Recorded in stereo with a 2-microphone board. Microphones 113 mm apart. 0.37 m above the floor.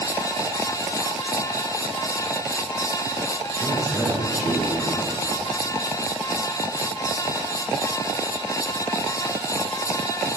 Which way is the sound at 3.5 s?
25° left (ahead or behind).